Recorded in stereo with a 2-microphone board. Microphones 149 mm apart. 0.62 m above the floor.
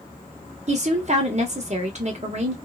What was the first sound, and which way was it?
A woman speaking, 50° right (ahead or behind).